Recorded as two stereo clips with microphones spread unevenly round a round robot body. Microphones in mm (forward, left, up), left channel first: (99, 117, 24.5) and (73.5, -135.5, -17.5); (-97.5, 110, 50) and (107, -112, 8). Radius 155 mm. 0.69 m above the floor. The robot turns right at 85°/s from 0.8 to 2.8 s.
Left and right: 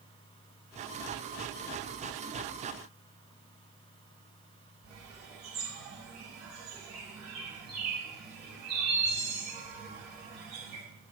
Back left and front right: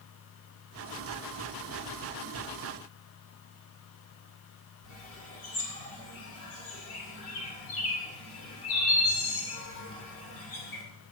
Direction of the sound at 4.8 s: Straight behind.